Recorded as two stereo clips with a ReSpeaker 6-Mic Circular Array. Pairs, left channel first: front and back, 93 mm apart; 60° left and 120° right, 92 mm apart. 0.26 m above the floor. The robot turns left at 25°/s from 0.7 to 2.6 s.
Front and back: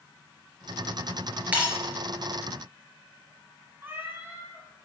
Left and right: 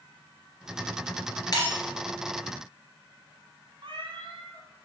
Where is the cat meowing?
120° right, 1.4 m.